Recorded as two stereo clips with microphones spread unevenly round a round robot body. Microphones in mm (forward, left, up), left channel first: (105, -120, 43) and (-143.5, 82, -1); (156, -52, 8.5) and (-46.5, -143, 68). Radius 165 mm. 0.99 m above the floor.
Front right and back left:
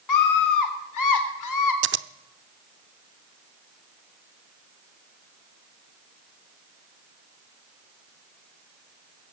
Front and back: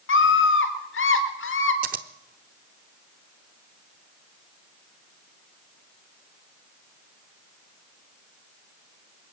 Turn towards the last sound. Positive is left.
turn(degrees=-165)